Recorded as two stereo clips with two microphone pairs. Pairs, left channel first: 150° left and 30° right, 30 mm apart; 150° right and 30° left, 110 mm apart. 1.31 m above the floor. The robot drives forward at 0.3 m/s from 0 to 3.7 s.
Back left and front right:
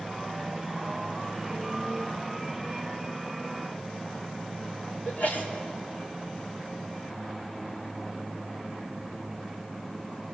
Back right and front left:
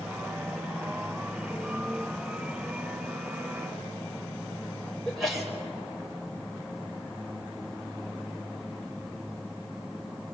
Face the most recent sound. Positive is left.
turn(degrees=120)